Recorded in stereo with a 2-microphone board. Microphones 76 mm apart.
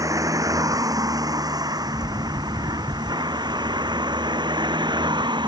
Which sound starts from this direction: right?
A vehicle, at 0.0 s.